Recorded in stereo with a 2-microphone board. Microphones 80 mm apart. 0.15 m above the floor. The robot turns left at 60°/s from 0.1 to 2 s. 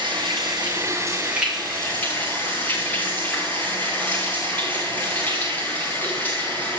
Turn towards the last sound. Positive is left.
turn(degrees=155)